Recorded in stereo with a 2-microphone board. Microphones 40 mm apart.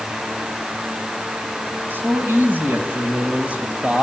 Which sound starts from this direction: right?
A man speaking, at 1.9 s.